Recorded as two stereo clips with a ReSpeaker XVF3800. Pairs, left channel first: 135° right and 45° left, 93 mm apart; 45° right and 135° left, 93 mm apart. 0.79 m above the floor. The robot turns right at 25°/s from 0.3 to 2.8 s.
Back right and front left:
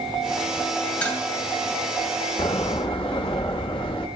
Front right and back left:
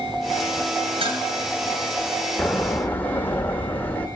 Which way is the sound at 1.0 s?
150° left.